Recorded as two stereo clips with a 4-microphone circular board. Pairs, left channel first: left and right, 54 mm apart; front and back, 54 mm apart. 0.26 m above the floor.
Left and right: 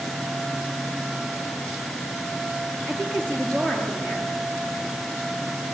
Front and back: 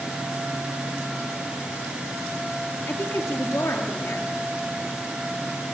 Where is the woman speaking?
20° left, 4.5 m.